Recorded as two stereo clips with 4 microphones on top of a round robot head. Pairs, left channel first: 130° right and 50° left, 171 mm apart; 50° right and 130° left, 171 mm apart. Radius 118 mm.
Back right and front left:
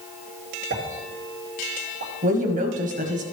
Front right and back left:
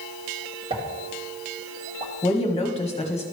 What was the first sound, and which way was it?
A pop, 70° left.